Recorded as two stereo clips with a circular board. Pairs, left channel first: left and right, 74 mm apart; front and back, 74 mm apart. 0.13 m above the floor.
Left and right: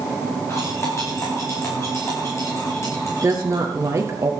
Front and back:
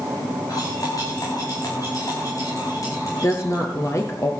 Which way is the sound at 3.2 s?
45° right.